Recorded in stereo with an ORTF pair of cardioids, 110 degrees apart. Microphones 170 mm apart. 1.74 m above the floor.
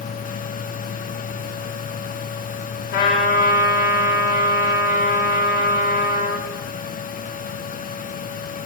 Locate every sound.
0.0 s a fan: 55° left, 1.5 m
2.9 s a trumpet: 70° left, 5 m